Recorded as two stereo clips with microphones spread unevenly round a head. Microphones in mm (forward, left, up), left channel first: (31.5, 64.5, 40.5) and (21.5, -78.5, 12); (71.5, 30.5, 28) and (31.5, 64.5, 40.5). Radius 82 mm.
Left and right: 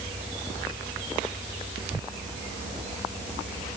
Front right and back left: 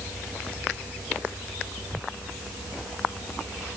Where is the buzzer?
No buzzer in this recording.